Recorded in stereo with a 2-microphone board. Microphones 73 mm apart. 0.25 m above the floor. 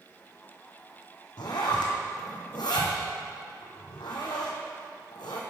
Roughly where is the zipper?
Left.